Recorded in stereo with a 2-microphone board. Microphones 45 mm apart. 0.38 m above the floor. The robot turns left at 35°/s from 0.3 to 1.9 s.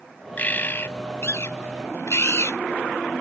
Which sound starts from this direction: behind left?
A bird, at 0.4 s.